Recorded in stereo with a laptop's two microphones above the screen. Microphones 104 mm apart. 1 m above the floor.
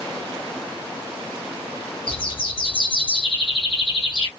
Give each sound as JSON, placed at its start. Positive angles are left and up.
{"t": 2.1, "sound": "a bird", "side_deg": 55, "distance_m": 0.9}